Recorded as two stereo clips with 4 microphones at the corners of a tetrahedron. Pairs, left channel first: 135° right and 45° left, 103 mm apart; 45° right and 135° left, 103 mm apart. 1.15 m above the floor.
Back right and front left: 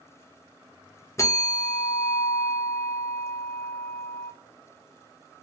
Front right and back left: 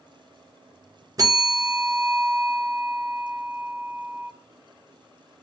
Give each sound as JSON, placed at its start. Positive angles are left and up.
{"t": 1.2, "sound": "a bell", "azimuth_deg": 175, "distance_m": 0.6}